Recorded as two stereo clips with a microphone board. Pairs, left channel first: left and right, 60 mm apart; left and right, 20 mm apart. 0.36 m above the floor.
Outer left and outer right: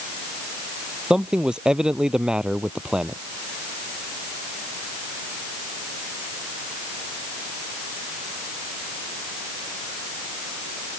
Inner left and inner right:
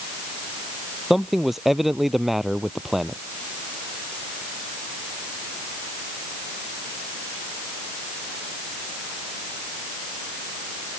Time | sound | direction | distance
1.1 | a man speaking | 15° right (ahead or behind) | ?